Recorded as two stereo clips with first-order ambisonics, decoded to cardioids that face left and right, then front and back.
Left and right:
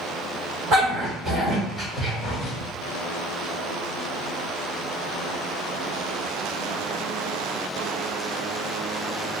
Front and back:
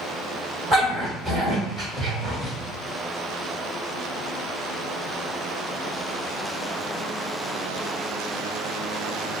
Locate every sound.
0.7 s a dog barking: 110° right, 1.8 m; by 2.5 s 115° left, 1.5 m